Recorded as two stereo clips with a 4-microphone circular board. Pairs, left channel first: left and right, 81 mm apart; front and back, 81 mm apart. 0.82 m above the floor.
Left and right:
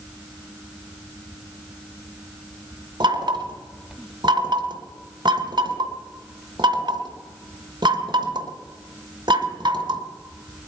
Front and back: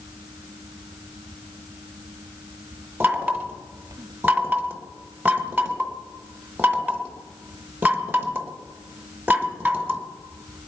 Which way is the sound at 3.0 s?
115° right.